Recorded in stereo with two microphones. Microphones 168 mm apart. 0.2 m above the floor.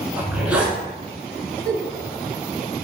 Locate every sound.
0.2 s a zipper: 5° right (ahead or behind), 0.8 m
1.6 s a giggle: 10° left (ahead or behind), 1.7 m